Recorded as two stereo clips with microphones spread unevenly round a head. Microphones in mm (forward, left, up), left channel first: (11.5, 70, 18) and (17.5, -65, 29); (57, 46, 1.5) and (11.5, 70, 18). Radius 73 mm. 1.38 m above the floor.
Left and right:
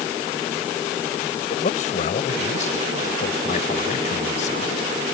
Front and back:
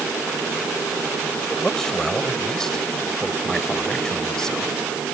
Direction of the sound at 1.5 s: 55° left.